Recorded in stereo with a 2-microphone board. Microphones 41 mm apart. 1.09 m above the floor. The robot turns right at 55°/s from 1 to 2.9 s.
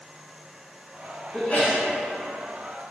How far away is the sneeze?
About 0.9 m.